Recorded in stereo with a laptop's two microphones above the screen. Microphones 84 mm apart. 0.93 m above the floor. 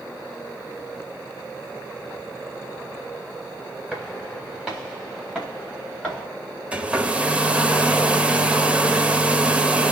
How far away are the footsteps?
About 7.5 m.